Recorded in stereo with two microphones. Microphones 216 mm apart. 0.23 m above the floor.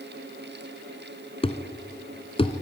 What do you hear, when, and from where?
1.4 s a thud: 25° left (ahead or behind), 1.3 m